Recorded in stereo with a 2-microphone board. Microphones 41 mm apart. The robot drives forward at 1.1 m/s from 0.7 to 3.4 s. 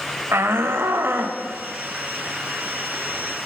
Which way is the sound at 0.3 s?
80° right.